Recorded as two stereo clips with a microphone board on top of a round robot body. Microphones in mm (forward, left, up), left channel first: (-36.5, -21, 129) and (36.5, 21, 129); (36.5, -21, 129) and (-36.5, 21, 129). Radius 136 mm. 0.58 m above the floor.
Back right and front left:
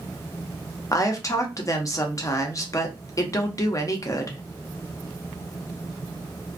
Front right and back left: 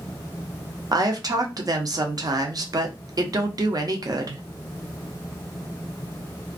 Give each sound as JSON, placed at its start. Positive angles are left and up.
{"t": 0.9, "sound": "a woman speaking", "azimuth_deg": 175, "distance_m": 0.8}